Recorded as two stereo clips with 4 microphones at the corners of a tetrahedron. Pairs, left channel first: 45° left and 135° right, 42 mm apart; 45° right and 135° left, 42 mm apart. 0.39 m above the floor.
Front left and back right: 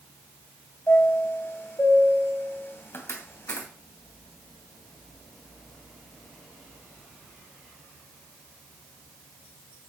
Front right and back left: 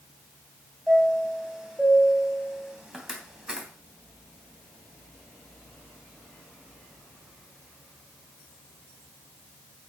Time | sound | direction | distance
0.9 | a chime | 60° left | 2.5 m